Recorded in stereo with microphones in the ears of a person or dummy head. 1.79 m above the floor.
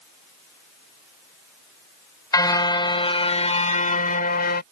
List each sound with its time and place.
2.3 s a car horn: 20° left (ahead or behind); by 4.6 s 55° left (ahead or behind)